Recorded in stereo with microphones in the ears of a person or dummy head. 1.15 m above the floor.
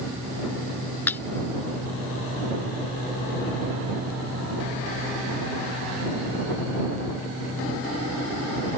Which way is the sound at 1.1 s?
15° left (ahead or behind).